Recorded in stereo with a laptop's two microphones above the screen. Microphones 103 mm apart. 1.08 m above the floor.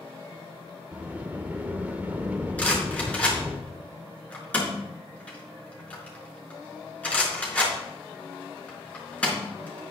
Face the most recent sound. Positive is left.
turn(degrees=15)  # may be behind; listen again after turning